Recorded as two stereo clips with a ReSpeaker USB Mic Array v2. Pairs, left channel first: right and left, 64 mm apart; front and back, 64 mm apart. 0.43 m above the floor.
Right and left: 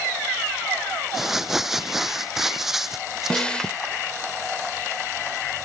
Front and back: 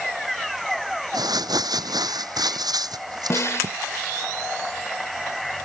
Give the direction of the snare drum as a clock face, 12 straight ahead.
1 o'clock.